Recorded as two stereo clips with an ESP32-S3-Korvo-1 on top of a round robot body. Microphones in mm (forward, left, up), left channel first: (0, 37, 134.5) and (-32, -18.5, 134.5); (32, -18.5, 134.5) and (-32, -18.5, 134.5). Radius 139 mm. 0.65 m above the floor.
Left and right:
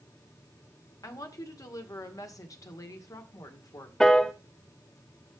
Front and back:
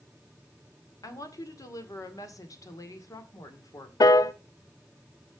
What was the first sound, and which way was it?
A woman speaking, 30° left.